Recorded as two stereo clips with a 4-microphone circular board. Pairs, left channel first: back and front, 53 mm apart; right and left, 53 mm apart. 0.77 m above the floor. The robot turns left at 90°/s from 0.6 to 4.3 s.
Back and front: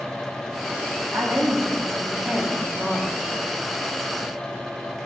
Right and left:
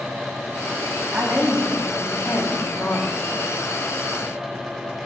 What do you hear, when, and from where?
1.1 s a woman speaking: 30° left, 1.2 m; by 3.3 s 165° right, 1.2 m